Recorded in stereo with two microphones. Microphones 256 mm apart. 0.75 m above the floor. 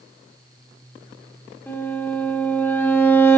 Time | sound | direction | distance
1.7 | a violin | 10° left (ahead or behind) | 1.6 m